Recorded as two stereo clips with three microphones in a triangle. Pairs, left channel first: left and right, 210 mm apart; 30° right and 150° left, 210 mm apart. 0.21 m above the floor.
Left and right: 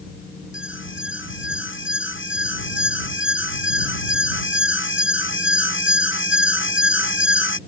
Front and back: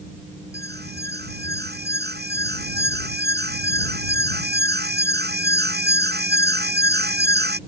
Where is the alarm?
110° left.